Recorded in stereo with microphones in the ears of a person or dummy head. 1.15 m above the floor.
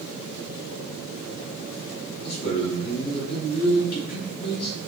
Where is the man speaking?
60° left (ahead or behind), 2 m.